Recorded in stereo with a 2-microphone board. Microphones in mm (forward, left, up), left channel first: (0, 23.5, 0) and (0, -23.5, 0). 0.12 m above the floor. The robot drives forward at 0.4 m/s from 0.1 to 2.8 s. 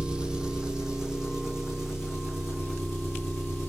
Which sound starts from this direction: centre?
An engine running, at 0.0 s.